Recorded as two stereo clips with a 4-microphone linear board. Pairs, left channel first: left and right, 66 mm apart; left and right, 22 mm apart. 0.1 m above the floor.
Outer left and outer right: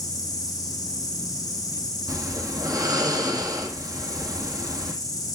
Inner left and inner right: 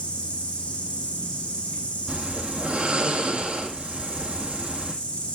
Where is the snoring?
75° right (ahead or behind), 2.5 m.